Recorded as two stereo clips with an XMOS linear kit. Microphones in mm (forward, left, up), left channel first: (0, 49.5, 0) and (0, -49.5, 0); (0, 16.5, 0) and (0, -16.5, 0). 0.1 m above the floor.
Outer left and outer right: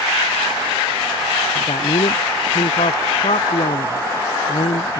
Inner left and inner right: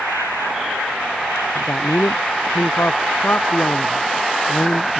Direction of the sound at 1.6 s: 80° left.